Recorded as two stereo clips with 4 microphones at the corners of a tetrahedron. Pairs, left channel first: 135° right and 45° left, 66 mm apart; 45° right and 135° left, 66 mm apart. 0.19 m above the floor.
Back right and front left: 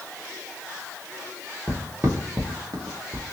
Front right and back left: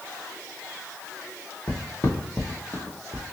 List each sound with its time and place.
1.7 s footsteps: 20° right, 1.7 m; by 3.2 s 50° left, 1.2 m